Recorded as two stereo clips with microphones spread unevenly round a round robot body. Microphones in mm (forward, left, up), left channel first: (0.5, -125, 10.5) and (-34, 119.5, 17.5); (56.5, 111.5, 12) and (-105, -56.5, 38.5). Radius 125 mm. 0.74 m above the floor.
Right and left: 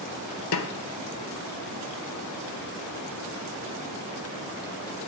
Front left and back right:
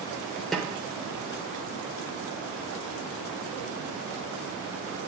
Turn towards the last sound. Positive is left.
turn(degrees=-45)